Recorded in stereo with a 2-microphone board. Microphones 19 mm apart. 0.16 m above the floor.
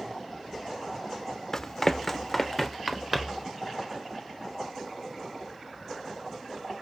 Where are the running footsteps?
20° left (ahead or behind), 0.6 m; by 3.5 s 20° right (ahead or behind), 1.4 m.